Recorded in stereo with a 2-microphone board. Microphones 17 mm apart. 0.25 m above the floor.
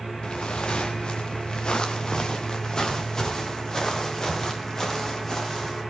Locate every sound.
0.2 s footsteps: 70° left (ahead or behind), 2 m; by 5.8 s 35° left (ahead or behind), 8.5 m